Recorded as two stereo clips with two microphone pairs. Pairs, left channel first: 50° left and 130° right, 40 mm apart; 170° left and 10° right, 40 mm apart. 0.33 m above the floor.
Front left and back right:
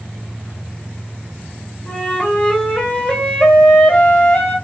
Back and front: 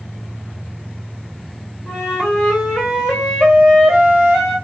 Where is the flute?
70° left, 1.1 m.